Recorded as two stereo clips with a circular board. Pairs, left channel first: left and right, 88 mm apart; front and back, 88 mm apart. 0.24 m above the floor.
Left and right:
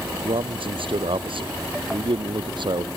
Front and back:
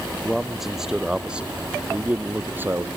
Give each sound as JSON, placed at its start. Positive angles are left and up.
{"t": 0.2, "sound": "a man speaking", "azimuth_deg": -90}